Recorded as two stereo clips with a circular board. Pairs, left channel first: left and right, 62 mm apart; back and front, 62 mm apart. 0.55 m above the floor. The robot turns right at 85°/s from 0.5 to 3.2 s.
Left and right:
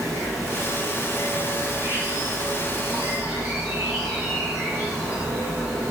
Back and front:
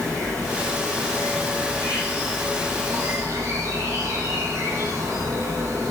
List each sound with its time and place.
0.0 s an insect: 110° left, 4 m; by 5.9 s 20° right, 4 m